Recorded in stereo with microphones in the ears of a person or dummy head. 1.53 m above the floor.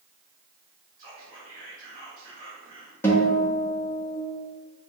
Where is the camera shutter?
No camera shutter in this recording.